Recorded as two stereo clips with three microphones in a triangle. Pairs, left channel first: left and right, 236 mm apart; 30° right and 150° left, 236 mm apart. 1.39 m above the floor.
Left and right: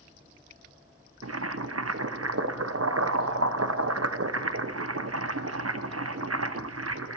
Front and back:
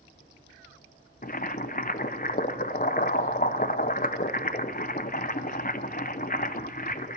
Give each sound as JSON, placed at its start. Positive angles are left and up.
{"t": 1.2, "sound": "boiling", "azimuth_deg": -85, "distance_m": 0.7}